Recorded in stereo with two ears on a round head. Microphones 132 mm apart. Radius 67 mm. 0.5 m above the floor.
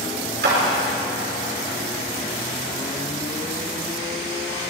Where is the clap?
80° right, 6.5 m.